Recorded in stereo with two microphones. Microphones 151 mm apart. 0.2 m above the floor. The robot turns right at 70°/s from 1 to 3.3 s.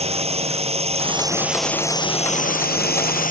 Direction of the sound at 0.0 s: 40° right.